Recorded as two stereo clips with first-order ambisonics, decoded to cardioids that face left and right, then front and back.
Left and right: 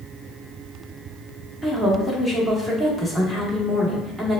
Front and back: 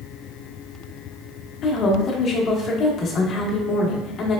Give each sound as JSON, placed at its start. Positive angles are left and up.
{"t": 1.6, "sound": "a woman speaking", "azimuth_deg": -5, "distance_m": 0.8}